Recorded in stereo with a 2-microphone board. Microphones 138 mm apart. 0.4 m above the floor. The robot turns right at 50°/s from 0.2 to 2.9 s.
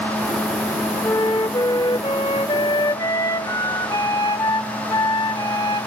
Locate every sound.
1.0 s a flute: 40° left, 0.7 m; by 5.9 s 135° left, 0.7 m